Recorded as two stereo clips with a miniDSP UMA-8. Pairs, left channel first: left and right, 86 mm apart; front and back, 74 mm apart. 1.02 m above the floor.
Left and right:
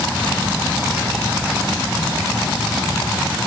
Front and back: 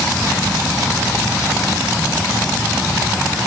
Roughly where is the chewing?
I don't hear chewing.